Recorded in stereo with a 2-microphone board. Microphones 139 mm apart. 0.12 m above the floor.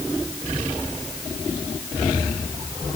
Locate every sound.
Only background noise.